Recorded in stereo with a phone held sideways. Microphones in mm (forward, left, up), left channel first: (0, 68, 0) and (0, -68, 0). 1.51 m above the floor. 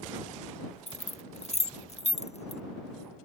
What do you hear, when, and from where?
0.9 s keys jangling: 55° left (ahead or behind)